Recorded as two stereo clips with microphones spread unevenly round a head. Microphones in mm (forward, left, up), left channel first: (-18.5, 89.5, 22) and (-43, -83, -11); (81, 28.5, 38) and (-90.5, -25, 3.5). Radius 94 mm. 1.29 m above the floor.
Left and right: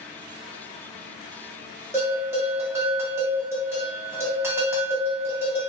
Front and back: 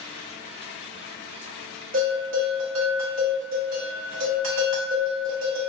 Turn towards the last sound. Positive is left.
turn(degrees=180)